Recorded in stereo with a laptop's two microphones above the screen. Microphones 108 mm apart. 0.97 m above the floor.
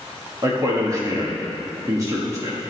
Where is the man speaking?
30° right (ahead or behind), 1.5 m.